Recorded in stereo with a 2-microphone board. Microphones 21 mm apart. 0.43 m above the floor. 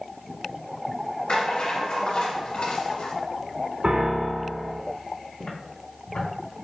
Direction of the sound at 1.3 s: 70° left (ahead or behind).